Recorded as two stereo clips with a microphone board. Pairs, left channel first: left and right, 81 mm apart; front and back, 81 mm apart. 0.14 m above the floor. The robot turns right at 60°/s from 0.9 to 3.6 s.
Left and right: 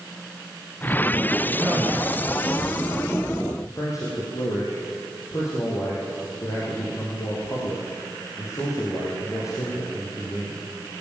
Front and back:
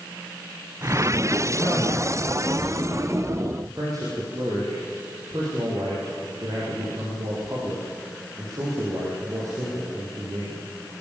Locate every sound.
1.6 s a man speaking: 25° right, 9 m; by 3.0 s 60° left, 9 m
3.6 s a man speaking: 135° left, 5.5 m